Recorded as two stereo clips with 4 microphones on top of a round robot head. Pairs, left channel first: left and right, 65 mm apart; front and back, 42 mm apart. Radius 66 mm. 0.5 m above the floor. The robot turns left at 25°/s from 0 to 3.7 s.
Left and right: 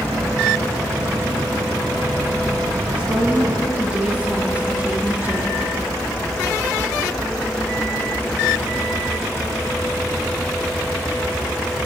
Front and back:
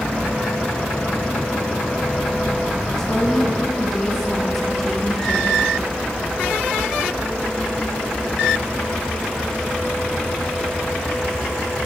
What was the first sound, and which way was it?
A woman speaking, 55° right.